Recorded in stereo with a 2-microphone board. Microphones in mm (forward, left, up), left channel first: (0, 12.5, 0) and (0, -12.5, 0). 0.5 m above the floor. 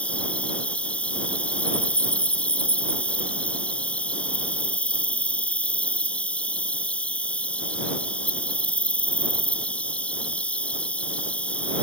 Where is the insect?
65° left (ahead or behind).